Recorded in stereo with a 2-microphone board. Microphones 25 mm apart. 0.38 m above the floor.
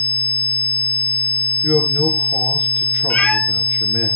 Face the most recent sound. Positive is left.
turn(degrees=75)  # may be behind; listen again after turning